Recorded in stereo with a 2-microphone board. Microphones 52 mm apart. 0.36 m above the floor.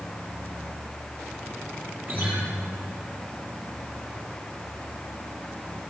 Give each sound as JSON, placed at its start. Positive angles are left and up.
{"t": 2.1, "sound": "a guitar", "side_deg": -35, "distance_m": 8.0}